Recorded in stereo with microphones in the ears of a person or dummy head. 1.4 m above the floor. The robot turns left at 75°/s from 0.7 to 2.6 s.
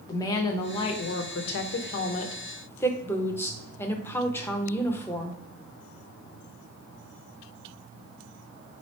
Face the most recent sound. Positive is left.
turn(degrees=10)